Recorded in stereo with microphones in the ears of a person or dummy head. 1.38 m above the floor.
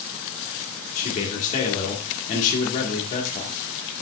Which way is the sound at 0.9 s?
45° left (ahead or behind).